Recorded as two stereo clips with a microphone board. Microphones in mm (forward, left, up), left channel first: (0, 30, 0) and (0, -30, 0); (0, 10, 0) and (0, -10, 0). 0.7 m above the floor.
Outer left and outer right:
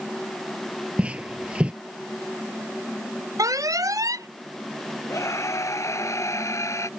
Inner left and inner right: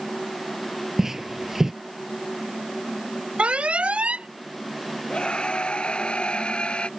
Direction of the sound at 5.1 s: 55° left (ahead or behind).